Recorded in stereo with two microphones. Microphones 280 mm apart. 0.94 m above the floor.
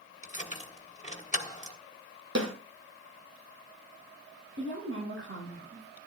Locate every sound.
0.2 s keys jangling: 25° left (ahead or behind), 1.5 m
2.4 s a snare drum: 75° right (ahead or behind), 5 m
4.6 s a woman speaking: 50° right (ahead or behind), 6 m